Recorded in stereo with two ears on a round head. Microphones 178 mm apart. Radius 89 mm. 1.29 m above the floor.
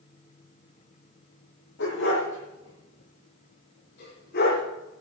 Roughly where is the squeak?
No squeak in this recording.